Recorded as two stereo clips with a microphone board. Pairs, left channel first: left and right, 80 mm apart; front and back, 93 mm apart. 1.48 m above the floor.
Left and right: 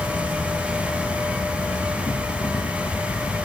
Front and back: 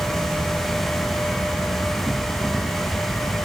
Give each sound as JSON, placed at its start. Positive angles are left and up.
{"t": 0.0, "sound": "an insect", "azimuth_deg": 80}